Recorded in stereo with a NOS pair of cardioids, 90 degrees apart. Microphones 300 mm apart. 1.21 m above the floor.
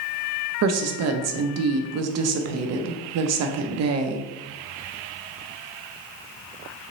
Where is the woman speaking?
55° right, 0.6 m.